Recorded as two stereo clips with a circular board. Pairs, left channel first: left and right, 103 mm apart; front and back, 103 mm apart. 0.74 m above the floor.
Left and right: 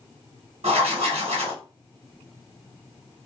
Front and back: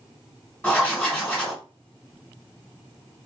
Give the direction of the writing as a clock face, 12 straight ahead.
3 o'clock.